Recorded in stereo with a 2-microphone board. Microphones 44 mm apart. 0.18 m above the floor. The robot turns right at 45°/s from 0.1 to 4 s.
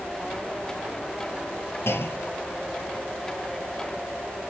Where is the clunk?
85° left, 2 m; by 2.6 s 120° left, 2 m.